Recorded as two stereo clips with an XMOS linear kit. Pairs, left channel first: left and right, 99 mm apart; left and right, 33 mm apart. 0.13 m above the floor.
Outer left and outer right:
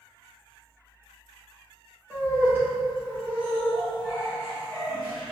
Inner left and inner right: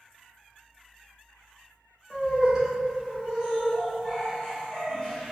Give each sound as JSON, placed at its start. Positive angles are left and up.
{"t": 2.1, "sound": "laughter", "side_deg": -25, "distance_m": 1.4}